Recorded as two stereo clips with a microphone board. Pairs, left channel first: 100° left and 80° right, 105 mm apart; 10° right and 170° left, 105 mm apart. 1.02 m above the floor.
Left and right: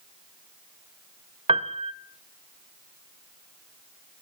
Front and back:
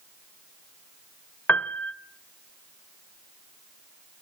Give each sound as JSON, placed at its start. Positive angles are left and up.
{"t": 1.5, "sound": "a piano", "azimuth_deg": -85, "distance_m": 0.8}